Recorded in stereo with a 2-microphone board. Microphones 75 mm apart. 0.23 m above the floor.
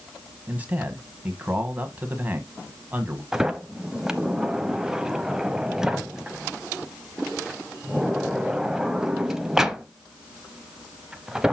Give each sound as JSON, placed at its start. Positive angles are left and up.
{"t": 0.5, "sound": "a man speaking", "side_deg": -20, "distance_m": 1.4}
{"t": 3.3, "sound": "a sliding door", "side_deg": -10, "distance_m": 0.6}